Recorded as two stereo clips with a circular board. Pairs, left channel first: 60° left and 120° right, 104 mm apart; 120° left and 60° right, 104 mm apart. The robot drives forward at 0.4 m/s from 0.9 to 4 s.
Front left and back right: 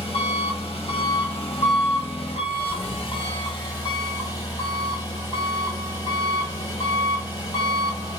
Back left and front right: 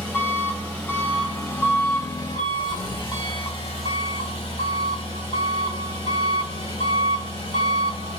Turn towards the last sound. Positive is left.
turn(degrees=105)